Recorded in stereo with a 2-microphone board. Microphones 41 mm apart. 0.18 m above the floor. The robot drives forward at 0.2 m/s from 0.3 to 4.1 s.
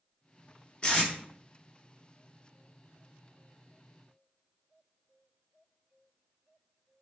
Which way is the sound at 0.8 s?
25° left (ahead or behind).